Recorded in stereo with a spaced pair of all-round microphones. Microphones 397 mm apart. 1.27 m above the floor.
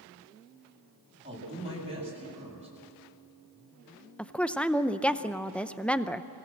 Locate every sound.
1.2 s a woman speaking: 30° right (ahead or behind), 8.5 m
4.2 s a woman speaking: 5° left (ahead or behind), 0.5 m